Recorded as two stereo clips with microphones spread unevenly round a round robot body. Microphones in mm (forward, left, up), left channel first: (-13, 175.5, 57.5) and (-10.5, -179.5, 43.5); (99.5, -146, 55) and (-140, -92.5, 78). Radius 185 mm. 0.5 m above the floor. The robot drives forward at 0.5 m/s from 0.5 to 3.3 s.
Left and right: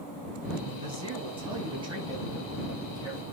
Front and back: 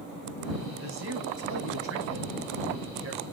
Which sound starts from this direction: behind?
A man speaking, at 0.7 s.